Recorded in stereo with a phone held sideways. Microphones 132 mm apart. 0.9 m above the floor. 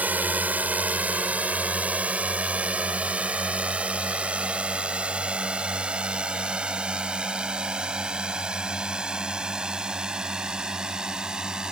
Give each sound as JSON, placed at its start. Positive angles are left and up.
{"t": 0.0, "sound": "a drone", "side_deg": -10}